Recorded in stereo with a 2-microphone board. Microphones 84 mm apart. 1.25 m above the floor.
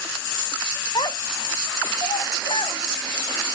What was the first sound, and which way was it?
A child speaking, 55° left (ahead or behind).